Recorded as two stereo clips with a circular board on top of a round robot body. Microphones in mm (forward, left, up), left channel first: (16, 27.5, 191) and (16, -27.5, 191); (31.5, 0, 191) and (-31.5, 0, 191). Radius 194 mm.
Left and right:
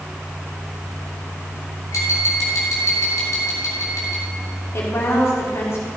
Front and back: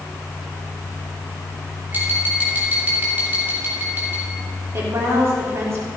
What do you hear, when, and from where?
1.9 s tapping: 120° left, 4 m
4.7 s a woman speaking: 135° left, 3.5 m